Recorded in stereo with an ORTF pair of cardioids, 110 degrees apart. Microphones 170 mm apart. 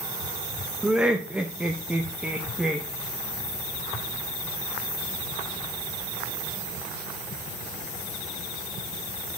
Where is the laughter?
5° right, 0.6 m.